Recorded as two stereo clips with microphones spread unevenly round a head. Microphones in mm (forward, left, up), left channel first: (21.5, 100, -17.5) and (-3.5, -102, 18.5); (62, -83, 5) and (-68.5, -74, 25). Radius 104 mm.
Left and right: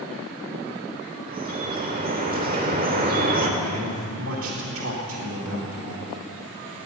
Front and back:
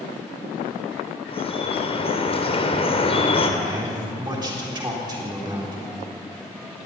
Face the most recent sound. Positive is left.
turn(degrees=-125)